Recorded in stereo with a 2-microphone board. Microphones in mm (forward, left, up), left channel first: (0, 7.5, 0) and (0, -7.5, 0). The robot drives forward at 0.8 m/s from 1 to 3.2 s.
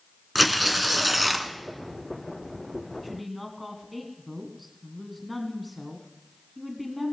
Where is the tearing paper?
10° right (ahead or behind), 1.4 m.